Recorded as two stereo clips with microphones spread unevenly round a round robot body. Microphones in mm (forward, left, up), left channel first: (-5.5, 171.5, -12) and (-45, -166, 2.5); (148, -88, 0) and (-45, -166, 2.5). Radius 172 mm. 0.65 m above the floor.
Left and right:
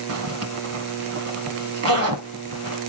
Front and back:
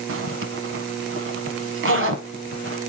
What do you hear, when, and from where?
0.1 s a zipper: 145° right, 1.1 m